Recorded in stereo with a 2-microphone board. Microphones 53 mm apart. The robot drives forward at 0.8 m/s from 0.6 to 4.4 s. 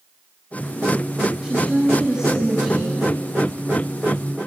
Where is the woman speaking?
10° right (ahead or behind), 3 m.